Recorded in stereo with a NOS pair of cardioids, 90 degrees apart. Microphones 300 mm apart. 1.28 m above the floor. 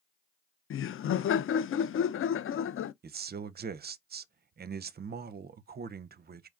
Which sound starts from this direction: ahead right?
A man speaking, at 3.0 s.